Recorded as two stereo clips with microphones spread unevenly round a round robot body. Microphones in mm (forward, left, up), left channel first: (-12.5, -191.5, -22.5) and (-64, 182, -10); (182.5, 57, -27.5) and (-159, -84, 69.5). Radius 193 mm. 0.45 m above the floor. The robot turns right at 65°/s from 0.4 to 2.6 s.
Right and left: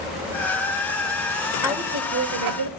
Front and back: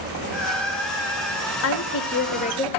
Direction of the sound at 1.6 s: 15° left.